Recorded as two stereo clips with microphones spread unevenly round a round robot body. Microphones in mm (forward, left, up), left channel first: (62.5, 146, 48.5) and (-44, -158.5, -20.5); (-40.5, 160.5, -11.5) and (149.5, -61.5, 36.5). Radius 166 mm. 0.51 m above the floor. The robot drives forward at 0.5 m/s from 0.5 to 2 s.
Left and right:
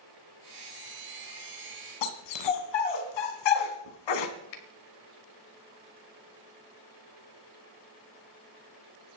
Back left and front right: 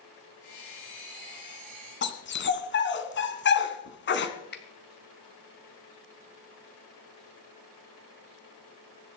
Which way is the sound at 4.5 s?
80° left.